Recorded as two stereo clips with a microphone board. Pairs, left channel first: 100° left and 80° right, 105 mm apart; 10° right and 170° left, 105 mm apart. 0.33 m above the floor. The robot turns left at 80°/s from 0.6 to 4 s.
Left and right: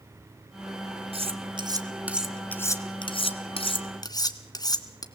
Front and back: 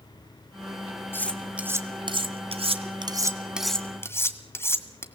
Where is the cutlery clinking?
75° right, 1.7 m; by 5.0 s 55° left, 1.7 m.